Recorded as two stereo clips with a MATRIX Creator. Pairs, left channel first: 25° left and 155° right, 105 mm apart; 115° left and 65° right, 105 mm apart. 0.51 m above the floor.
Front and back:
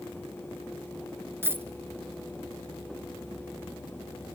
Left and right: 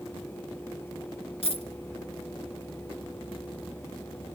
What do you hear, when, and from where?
1.4 s a dropped coin: 135° left, 1.1 m